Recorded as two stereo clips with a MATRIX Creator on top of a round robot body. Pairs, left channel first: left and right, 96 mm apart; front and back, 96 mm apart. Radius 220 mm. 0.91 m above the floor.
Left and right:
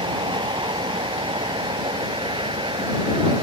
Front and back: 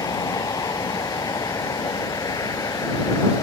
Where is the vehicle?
55° right.